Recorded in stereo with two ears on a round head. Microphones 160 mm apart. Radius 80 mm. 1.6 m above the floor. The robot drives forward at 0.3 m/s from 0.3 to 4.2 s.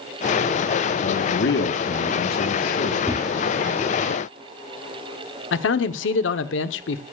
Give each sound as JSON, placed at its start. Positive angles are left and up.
{"t": 1.0, "sound": "a man speaking", "side_deg": 70, "distance_m": 1.3}
{"t": 3.0, "sound": "a whoosh", "side_deg": 15, "distance_m": 3.5}
{"t": 5.5, "sound": "a man speaking", "side_deg": 75, "distance_m": 1.0}